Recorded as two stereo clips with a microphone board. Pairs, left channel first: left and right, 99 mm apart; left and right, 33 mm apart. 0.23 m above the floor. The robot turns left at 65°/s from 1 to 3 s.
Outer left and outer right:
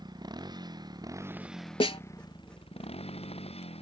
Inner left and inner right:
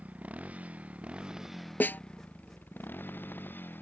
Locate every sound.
0.0 s a motorcycle: 45° right (ahead or behind); by 3.8 s 85° left
1.8 s a snare drum: 70° left (ahead or behind); by 2.0 s 85° left